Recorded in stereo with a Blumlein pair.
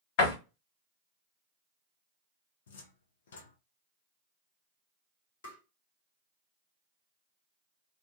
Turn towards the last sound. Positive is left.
turn(degrees=60)